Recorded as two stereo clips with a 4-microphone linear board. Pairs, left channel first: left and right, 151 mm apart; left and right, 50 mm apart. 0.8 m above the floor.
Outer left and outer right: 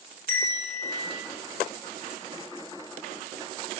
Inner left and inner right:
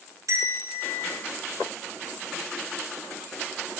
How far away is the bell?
About 6.5 m.